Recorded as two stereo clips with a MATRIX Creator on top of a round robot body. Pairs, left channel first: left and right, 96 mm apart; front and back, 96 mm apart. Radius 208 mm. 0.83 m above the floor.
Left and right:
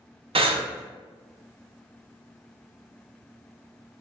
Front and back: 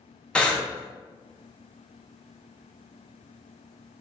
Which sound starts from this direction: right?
Breathing, at 0.3 s.